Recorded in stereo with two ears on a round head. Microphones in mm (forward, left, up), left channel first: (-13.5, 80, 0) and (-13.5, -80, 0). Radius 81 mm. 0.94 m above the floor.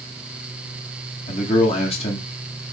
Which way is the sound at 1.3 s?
35° left (ahead or behind).